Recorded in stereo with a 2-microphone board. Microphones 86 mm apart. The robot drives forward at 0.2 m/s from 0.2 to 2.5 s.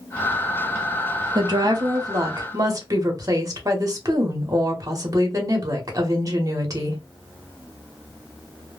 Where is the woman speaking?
50° right (ahead or behind), 0.8 m; by 7.0 s 40° right (ahead or behind), 0.9 m.